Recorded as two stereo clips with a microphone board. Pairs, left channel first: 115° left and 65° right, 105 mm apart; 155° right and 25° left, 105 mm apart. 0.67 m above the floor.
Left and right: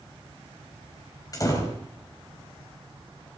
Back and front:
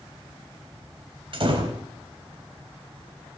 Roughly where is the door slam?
Ahead left.